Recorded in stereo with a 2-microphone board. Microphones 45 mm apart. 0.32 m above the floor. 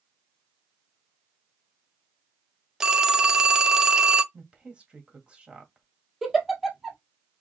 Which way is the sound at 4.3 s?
25° right (ahead or behind).